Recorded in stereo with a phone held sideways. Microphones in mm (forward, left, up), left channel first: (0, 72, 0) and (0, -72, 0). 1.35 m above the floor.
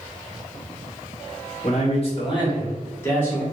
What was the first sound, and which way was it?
A man speaking, 55° left (ahead or behind).